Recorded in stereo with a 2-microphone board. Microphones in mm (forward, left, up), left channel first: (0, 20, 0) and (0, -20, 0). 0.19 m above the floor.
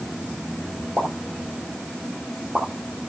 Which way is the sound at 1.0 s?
40° right (ahead or behind).